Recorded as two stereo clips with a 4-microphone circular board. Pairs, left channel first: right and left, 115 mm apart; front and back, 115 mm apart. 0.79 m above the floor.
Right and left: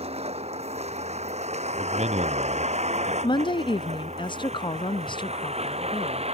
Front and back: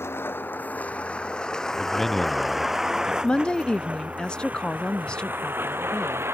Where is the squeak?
I don't hear a squeak.